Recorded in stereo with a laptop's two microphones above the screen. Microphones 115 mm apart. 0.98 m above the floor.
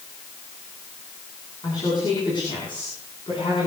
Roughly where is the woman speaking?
Left.